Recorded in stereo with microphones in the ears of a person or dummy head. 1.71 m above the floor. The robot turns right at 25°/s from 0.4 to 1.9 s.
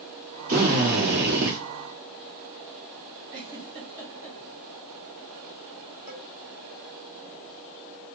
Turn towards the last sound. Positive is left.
turn(degrees=-35)  # may be behind; listen again after turning